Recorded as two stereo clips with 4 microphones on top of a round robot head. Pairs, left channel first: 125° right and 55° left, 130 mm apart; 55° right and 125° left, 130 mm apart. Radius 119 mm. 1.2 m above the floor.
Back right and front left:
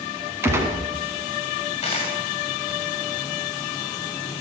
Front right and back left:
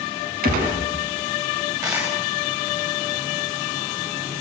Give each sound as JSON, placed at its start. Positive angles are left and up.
{"t": 0.4, "sound": "a gunshot", "azimuth_deg": 130, "distance_m": 4.5}
{"t": 1.8, "sound": "a dropped coin", "azimuth_deg": -170, "distance_m": 7.5}